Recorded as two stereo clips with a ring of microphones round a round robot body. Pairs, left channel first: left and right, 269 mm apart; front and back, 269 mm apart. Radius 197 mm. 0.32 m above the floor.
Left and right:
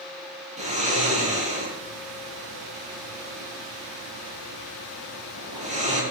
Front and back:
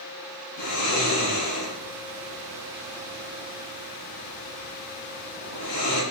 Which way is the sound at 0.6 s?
25° right.